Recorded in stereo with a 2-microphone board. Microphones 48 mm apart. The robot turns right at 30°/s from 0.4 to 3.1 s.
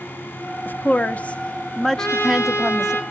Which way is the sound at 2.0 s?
95° left.